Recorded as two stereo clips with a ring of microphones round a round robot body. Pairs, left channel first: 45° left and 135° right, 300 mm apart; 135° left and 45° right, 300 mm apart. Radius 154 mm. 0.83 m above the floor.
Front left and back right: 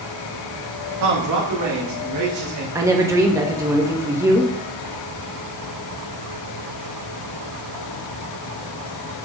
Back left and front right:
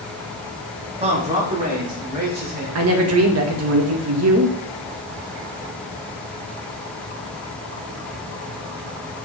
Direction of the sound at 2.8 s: 60° right.